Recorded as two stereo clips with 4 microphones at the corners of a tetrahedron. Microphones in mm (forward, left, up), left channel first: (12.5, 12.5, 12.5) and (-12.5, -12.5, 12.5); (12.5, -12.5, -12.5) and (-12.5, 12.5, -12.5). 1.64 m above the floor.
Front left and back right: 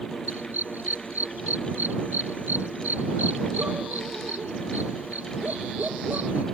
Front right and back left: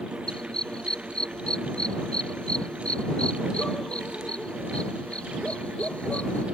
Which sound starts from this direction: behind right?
A dog barking, at 0.3 s.